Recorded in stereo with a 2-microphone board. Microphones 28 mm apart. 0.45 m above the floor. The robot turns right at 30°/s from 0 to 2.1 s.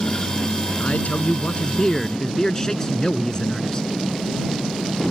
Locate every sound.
0.8 s a man speaking: 120° left; by 3.9 s 160° left